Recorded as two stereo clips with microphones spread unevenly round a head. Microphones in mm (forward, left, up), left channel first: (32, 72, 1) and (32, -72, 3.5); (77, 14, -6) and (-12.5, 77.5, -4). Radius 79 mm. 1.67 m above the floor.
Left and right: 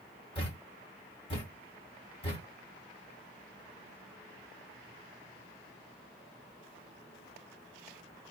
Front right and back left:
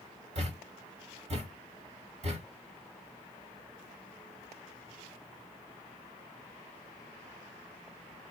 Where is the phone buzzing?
I don't hear a phone buzzing.